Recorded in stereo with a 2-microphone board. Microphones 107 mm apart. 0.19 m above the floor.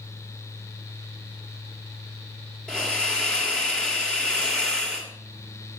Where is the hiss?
10° left (ahead or behind), 3.5 m.